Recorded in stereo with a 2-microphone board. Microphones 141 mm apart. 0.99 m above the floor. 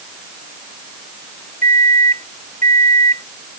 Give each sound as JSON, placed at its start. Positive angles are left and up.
{"t": 1.6, "sound": "a microwave", "side_deg": -65}